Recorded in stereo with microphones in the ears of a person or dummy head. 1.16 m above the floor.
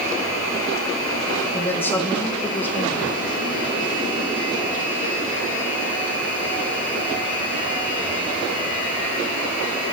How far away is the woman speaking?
About 1.1 m.